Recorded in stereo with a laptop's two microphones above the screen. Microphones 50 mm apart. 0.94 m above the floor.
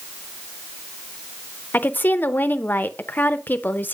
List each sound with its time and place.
1.7 s a woman speaking: 40° left (ahead or behind), 0.6 m